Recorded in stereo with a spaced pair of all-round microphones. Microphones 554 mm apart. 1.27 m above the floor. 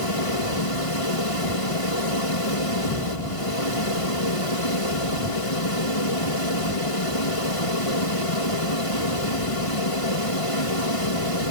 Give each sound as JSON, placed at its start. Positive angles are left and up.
{"t": 0.0, "sound": "a fan", "side_deg": 70}